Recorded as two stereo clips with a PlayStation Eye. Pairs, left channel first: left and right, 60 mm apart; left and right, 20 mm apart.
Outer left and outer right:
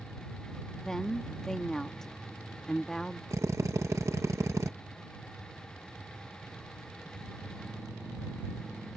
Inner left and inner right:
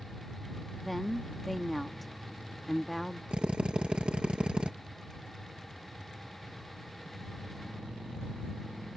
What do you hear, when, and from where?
0.7 s a woman speaking: 10° left (ahead or behind)
3.3 s a drill: 55° right (ahead or behind)